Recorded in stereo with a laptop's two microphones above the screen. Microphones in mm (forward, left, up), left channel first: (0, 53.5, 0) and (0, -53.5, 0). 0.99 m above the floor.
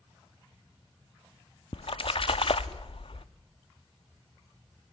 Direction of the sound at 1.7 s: 55° left (ahead or behind).